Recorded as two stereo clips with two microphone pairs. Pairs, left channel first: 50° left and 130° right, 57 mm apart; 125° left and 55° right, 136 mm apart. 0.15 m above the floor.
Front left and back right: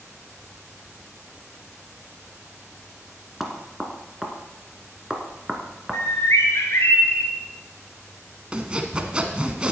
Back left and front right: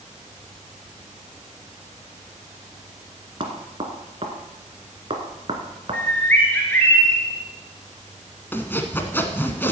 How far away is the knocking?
About 1.6 m.